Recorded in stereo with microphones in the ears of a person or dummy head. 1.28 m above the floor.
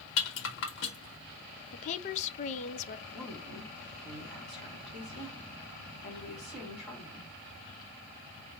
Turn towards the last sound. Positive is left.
turn(degrees=5)  # may be behind; listen again after turning